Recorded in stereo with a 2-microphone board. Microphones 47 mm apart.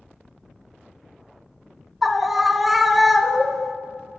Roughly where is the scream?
Centre.